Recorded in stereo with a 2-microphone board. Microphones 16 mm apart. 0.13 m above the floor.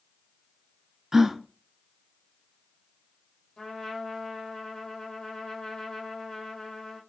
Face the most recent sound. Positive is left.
turn(degrees=40)  # may be behind; listen again after turning